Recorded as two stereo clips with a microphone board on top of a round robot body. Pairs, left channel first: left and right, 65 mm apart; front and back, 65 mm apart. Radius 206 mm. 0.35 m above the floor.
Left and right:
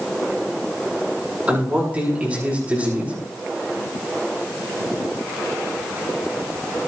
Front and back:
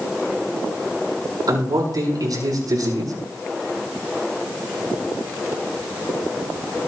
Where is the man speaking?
160° right, 7 m.